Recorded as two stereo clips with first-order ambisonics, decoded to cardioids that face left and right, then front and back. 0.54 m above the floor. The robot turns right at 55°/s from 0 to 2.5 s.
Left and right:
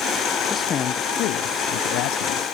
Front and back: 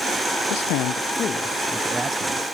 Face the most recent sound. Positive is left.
turn(degrees=130)